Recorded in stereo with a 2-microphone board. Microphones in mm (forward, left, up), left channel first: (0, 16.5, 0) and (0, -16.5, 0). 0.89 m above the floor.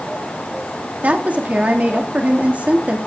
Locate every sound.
1.0 s a woman speaking: 50° right (ahead or behind), 2 m